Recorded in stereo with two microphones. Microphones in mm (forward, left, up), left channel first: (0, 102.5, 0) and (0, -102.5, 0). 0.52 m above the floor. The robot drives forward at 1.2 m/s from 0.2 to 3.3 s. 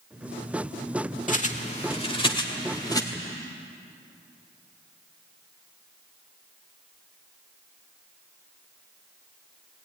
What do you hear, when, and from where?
1.3 s a bird: 40° left (ahead or behind), 1.5 m; by 3.0 s 20° left (ahead or behind), 3 m